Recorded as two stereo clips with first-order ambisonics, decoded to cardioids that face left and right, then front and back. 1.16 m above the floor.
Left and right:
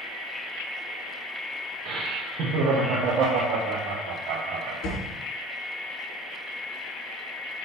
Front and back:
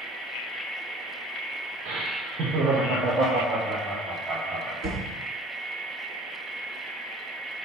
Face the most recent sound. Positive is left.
turn(degrees=130)